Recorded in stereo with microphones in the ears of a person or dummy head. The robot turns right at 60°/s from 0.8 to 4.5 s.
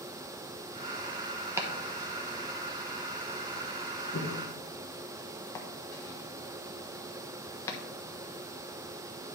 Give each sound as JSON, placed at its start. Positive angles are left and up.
{"t": 1.6, "sound": "chopping", "side_deg": -10, "distance_m": 1.1}